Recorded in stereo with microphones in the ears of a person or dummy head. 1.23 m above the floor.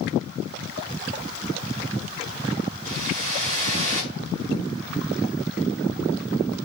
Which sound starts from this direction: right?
A whoosh, at 2.9 s.